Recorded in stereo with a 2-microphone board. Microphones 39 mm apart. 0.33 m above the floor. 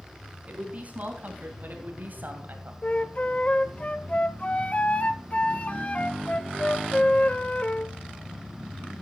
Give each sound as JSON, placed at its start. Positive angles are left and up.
{"t": 0.5, "sound": "a woman speaking", "side_deg": -35, "distance_m": 4.0}
{"t": 2.8, "sound": "a flute", "side_deg": 35, "distance_m": 0.7}